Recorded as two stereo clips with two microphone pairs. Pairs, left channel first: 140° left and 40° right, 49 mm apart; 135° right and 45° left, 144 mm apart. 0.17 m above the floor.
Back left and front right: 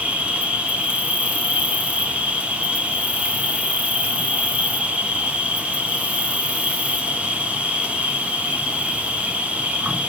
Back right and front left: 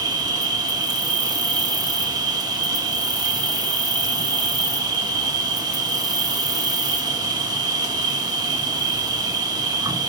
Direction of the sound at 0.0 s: 5° left.